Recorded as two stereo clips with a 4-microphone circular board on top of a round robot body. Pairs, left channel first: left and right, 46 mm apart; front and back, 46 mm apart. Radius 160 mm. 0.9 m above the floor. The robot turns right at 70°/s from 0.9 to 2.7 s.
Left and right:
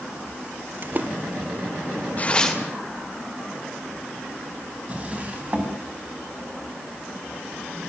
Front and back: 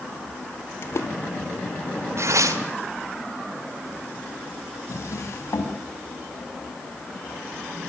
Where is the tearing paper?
150° left, 2 m; by 2.6 s straight behind, 2 m.